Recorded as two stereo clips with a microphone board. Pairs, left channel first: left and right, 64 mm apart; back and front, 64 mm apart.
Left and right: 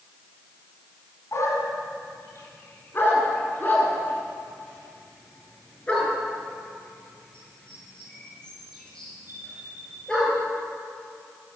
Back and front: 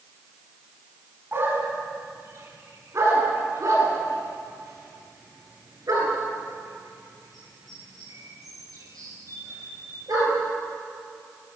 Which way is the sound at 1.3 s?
50° left.